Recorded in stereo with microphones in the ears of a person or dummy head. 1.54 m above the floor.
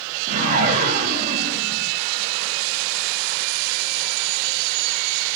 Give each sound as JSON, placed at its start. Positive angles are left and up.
{"t": 0.3, "sound": "a whoosh", "side_deg": -30, "distance_m": 0.5}